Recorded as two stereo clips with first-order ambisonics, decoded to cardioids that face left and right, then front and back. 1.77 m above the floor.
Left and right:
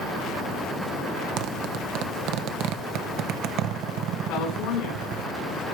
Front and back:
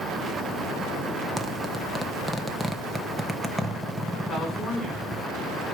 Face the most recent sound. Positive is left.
turn(degrees=75)